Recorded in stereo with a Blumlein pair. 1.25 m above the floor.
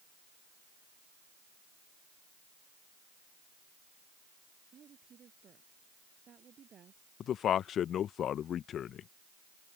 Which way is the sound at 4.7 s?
25° right.